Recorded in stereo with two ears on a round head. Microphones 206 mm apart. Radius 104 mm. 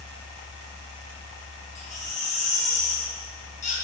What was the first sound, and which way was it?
A baby crying, 35° left (ahead or behind).